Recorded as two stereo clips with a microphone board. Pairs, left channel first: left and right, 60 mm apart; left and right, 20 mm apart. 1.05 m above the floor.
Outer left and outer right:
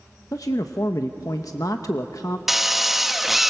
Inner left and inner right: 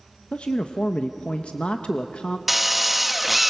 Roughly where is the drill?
Centre.